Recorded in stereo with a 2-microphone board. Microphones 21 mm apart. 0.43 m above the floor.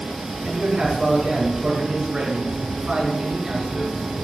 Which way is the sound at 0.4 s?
35° right (ahead or behind).